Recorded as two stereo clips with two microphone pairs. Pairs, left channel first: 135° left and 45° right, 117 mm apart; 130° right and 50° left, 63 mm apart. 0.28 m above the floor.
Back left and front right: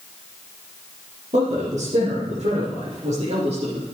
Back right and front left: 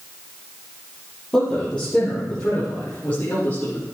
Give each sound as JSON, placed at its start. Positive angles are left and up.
{"t": 1.3, "sound": "a man speaking", "azimuth_deg": -60, "distance_m": 6.0}